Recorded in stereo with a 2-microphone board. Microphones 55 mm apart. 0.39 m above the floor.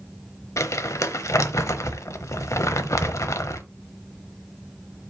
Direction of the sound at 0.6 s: 70° left (ahead or behind).